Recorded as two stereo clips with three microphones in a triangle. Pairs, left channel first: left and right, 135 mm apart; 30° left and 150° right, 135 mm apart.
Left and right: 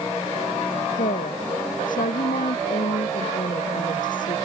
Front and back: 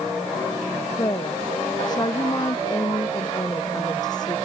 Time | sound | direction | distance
0.9 | a woman speaking | 90° left | ?